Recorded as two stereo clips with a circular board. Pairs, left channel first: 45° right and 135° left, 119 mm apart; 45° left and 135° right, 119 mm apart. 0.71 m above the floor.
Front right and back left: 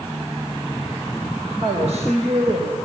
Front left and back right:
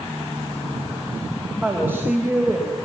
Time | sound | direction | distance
1.6 | a woman speaking | 155° left | 4 m